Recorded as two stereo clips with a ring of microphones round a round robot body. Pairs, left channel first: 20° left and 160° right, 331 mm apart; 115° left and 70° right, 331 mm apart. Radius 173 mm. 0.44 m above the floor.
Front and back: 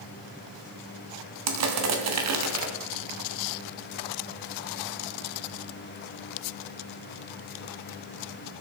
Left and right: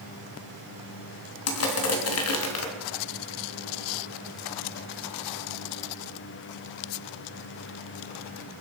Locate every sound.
1.5 s crushing: 160° left, 2.5 m